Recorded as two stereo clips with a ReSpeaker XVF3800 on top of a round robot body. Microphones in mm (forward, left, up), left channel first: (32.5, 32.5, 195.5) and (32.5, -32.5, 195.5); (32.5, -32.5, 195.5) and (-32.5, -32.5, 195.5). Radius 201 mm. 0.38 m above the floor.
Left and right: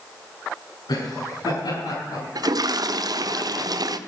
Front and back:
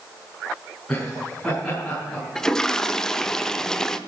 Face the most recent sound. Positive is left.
turn(degrees=-80)